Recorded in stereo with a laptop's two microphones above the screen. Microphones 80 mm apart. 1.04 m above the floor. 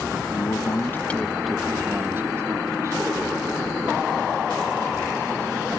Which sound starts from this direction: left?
A man speaking, at 0.3 s.